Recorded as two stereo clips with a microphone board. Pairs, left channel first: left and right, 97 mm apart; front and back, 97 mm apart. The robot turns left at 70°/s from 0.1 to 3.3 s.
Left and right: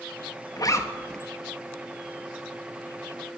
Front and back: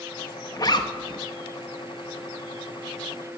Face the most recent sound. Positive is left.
turn(degrees=-145)